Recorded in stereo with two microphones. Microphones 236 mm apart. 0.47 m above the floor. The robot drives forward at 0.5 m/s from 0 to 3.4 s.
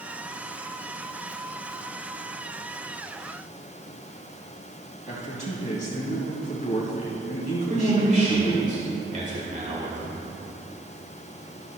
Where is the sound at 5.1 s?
35° left (ahead or behind), 3 m.